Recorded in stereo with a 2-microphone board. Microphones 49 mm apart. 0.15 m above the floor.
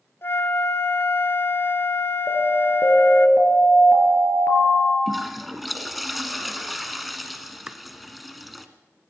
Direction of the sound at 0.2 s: 55° left (ahead or behind).